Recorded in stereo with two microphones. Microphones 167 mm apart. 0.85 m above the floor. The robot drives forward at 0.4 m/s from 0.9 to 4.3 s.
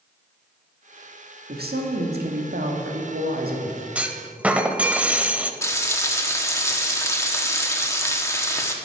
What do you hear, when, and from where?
1.5 s a woman speaking: 65° right (ahead or behind), 1.5 m; by 3.9 s 60° right (ahead or behind), 1.5 m
4.0 s a clunk: 5° right (ahead or behind), 0.6 m; by 5.5 s 10° right (ahead or behind), 0.6 m
5.6 s frying: 15° left (ahead or behind), 1.1 m